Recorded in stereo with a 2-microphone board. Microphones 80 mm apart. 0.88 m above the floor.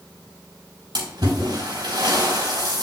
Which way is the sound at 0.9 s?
60° right (ahead or behind).